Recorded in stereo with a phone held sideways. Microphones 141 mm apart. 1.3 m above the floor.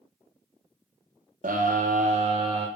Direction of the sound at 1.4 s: 75° right (ahead or behind).